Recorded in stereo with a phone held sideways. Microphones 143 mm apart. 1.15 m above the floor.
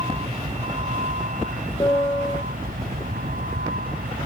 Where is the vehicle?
40° right (ahead or behind); by 4.3 s 90° right.